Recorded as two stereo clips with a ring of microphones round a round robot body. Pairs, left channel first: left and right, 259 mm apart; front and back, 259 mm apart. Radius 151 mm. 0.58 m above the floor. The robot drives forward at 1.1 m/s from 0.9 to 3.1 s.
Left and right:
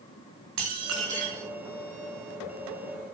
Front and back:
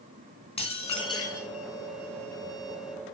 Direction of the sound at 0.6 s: 70° right.